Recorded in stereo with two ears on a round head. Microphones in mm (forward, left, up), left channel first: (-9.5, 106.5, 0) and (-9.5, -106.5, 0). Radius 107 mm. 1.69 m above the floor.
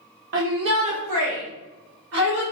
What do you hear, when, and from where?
0.3 s a shout: 55° right (ahead or behind), 1.0 m; by 2.4 s 70° right (ahead or behind), 3.5 m